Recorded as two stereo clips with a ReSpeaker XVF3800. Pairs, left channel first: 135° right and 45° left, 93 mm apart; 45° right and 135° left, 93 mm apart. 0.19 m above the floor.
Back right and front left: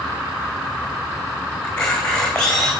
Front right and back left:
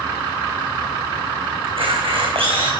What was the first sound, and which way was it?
A camera shutter, 145° left.